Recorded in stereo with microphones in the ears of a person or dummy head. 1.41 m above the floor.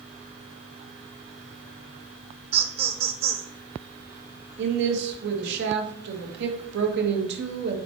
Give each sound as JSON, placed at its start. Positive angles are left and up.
{"t": 2.5, "sound": "laughter", "side_deg": -40, "distance_m": 1.4}
{"t": 4.6, "sound": "a woman speaking", "side_deg": -70, "distance_m": 1.8}